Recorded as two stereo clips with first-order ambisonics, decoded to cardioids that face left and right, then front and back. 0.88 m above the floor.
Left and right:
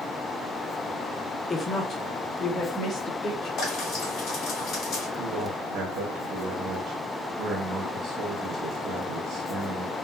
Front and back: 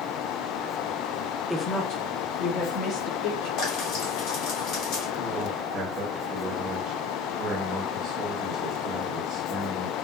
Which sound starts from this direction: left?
A woman speaking, at 1.5 s.